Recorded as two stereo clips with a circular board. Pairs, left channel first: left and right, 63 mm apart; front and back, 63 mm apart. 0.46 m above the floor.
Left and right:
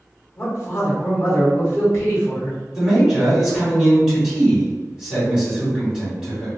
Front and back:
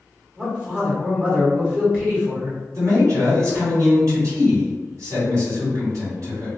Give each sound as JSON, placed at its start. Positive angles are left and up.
{"t": 0.4, "sound": "a man speaking", "azimuth_deg": 115, "distance_m": 1.1}
{"t": 2.7, "sound": "a man speaking", "azimuth_deg": -165, "distance_m": 1.9}